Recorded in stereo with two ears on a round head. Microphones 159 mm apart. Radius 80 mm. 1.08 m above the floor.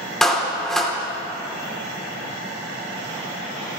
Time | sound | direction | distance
0.2 | a clap | 5° left (ahead or behind) | 2.5 m